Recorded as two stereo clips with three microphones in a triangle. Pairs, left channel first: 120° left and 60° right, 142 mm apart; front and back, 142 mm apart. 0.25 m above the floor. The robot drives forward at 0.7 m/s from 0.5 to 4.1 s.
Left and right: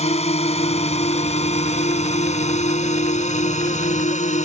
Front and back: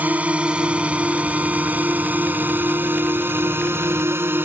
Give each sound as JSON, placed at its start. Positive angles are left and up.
{"t": 0.0, "sound": "a drone", "azimuth_deg": 105}